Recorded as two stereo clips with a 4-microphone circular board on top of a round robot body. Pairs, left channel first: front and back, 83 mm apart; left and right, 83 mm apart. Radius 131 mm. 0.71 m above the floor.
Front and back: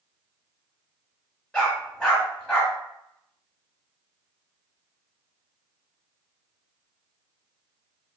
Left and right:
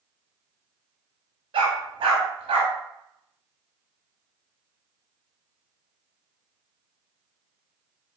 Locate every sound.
1.5 s a dog barking: 80° right, 0.9 m